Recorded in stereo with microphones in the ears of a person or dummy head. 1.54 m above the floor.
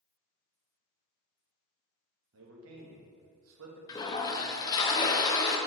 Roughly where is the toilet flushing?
Left.